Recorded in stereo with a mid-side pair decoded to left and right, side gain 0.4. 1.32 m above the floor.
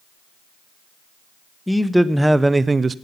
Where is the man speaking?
5° left, 0.9 m; by 3.0 s 50° right, 0.5 m.